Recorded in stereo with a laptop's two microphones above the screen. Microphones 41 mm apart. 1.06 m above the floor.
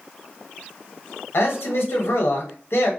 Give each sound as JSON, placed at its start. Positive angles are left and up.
{"t": 1.3, "sound": "a man speaking", "side_deg": 80, "distance_m": 0.9}